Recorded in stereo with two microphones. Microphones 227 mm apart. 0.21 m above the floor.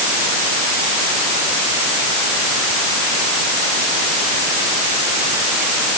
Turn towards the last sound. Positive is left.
No sound to turn to.